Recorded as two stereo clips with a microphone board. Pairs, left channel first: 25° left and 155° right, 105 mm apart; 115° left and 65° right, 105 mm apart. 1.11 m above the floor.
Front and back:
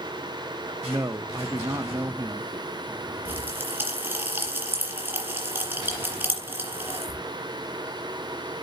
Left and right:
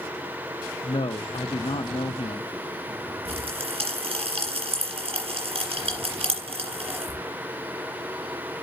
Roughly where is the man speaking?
Behind left.